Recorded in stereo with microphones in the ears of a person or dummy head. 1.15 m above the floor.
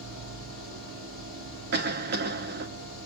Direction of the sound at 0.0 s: 65° right (ahead or behind).